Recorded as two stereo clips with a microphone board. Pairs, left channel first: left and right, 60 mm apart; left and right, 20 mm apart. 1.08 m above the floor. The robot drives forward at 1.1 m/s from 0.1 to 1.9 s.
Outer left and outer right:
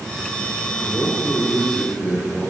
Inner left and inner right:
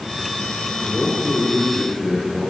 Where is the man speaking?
5° left (ahead or behind), 2.5 m; by 2.5 s centre (ahead or behind), 4 m.